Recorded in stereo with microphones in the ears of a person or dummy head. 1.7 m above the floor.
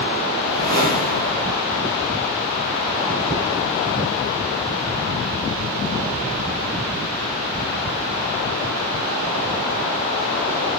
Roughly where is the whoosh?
Right.